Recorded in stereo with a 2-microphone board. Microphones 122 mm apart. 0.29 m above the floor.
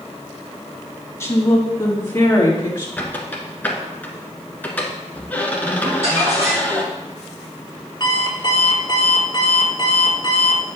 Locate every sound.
1.2 s a woman speaking: 25° left (ahead or behind), 2.5 m; by 2.9 s 20° left (ahead or behind), 3.5 m
3.0 s a squeak: 15° left (ahead or behind), 1.5 m
5.8 s crumpling: 55° right (ahead or behind), 4 m
8.0 s an alarm clock: 40° left (ahead or behind), 2 m